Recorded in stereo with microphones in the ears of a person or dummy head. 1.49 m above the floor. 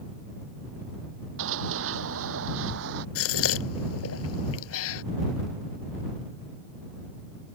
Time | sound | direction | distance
1.4 | running footsteps | 65° right (ahead or behind) | ?
3.1 | a gasp | 80° left | ?